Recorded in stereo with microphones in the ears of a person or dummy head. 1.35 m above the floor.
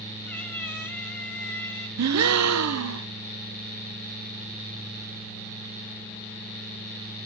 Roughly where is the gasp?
Right.